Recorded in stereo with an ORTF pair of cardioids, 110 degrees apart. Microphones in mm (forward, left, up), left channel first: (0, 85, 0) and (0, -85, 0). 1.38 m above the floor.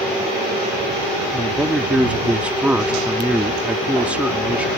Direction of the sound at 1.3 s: 5° right.